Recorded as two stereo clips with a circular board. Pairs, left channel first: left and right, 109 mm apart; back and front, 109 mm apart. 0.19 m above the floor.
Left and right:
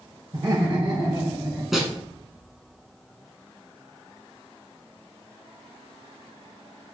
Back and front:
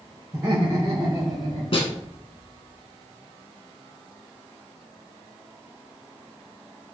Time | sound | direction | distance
0.3 | laughter | 45° right | 1.9 m
1.7 | a snare drum | 175° right | 0.9 m